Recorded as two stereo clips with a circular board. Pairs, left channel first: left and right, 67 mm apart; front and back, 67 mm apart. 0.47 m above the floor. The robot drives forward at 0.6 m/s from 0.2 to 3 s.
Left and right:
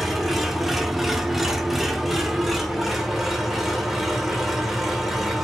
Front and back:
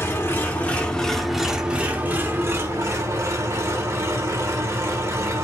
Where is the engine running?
5° right, 1.1 m; by 5.4 s 175° right, 1.4 m.